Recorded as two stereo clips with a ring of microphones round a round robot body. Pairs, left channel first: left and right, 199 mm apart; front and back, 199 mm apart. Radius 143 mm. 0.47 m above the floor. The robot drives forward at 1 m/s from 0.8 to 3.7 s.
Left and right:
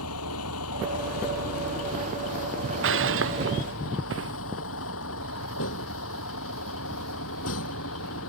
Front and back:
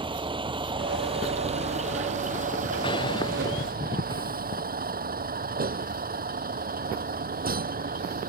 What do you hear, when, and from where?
0.0 s a vehicle: 115° left; by 8.3 s 135° left
2.8 s breaking glass: 75° right; by 4.4 s 80° right